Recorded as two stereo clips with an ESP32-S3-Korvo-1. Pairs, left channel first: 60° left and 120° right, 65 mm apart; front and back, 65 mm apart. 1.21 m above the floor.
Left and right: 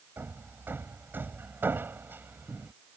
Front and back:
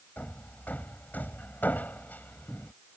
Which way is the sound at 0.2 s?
65° right.